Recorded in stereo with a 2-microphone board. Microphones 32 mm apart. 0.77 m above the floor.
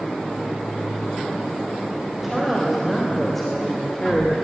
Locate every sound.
2.1 s a woman speaking: 10° right (ahead or behind), 4 m; by 4.5 s 25° left (ahead or behind), 2 m